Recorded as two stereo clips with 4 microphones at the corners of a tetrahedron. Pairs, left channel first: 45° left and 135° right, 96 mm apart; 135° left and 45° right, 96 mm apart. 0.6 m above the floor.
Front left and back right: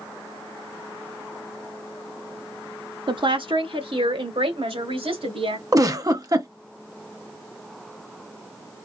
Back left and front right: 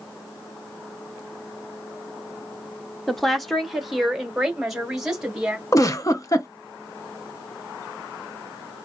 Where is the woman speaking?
140° right, 0.9 m; by 5.6 s 130° right, 2 m.